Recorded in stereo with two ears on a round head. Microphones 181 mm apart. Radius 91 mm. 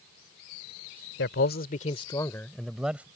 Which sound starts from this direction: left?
A man speaking, at 1.2 s.